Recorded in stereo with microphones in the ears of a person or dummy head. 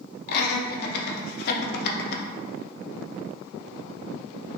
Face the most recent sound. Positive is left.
turn(degrees=55)  # may be behind; listen again after turning